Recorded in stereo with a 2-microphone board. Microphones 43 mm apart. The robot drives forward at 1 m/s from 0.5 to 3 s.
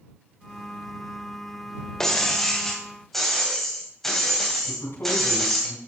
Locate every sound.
2.0 s breaking glass: 10° left (ahead or behind), 1.5 m; by 5.7 s 5° left (ahead or behind), 2.5 m
4.7 s a man speaking: 60° left (ahead or behind), 3 m